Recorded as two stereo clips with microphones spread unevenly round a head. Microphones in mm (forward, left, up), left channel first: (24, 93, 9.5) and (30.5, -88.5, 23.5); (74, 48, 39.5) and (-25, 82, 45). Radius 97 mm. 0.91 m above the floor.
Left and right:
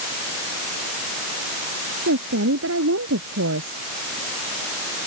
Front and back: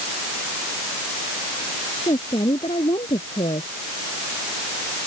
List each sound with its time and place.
2.1 s a woman speaking: 80° right; by 3.8 s 75° right